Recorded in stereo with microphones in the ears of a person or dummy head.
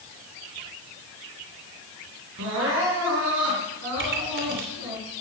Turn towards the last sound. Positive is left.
turn(degrees=-60)  # may be behind; listen again after turning